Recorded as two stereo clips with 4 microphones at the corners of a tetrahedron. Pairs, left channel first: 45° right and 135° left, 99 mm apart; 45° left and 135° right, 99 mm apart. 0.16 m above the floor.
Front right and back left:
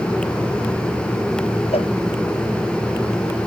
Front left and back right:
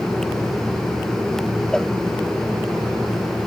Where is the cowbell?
40° right.